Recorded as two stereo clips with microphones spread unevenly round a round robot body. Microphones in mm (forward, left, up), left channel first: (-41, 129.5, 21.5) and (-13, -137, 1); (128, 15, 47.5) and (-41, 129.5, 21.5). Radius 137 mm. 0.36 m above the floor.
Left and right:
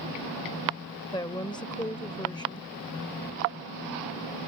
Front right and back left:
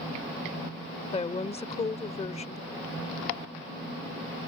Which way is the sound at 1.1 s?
20° left.